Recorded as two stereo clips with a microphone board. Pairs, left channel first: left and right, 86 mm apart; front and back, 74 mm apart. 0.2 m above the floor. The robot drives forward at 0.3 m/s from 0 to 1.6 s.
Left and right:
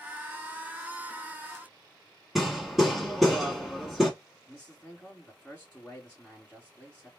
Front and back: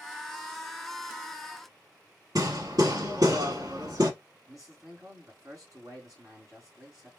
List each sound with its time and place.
2.4 s hammering: 175° right, 1.0 m
4.5 s a man speaking: 170° left, 2.5 m